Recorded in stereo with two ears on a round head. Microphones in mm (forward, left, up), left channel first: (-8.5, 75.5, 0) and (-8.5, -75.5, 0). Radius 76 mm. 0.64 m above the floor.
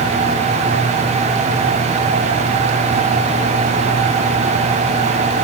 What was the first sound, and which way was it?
Only background noise.